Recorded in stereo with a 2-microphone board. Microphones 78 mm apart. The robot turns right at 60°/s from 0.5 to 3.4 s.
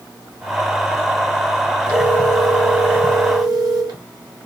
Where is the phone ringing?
145° left, 1.7 m; by 4.0 s 125° right, 1.7 m.